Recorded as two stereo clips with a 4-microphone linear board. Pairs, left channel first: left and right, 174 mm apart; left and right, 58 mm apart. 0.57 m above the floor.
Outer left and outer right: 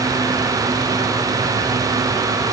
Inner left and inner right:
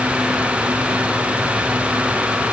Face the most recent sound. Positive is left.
No sound to turn to.